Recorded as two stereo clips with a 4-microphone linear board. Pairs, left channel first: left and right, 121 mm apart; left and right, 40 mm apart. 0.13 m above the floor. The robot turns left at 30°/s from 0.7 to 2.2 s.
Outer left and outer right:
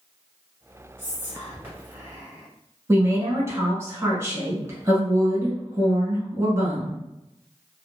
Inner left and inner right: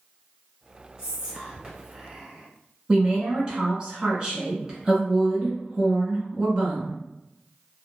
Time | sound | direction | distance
1.0 | whispering | 20° right (ahead or behind) | 1.4 m
2.9 | a woman speaking | 25° right (ahead or behind) | 1.2 m